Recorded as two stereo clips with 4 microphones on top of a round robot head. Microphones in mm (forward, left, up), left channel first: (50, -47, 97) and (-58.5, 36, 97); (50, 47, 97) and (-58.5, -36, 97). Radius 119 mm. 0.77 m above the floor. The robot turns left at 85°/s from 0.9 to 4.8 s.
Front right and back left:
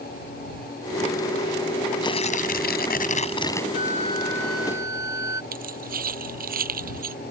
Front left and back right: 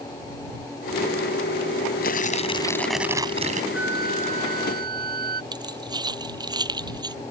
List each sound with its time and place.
2.0 s tearing paper: 25° left; by 3.6 s 115° right
3.7 s a flute: 60° right; by 5.4 s 150° right
5.5 s keys jangling: 155° left